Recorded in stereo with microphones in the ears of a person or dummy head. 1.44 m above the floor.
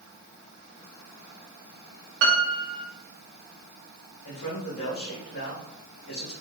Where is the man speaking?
70° left (ahead or behind), 2 m.